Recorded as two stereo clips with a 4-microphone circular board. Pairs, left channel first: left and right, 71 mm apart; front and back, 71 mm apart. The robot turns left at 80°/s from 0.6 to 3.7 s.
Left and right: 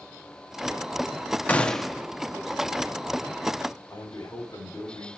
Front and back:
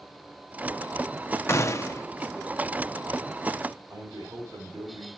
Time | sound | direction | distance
1.5 | a gunshot | 30° left | 0.6 m
3.9 | a man speaking | 145° left | 3 m